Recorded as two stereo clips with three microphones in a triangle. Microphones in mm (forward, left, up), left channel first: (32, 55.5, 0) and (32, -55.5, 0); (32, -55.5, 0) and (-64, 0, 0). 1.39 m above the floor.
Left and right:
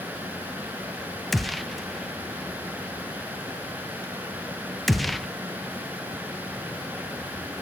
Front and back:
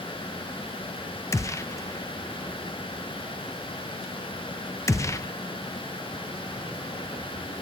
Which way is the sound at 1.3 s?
Straight ahead.